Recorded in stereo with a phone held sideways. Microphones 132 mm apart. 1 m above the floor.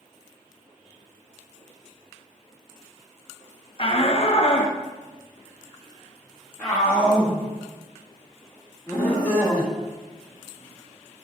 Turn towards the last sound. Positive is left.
turn(degrees=5)  # may be behind; listen again after turning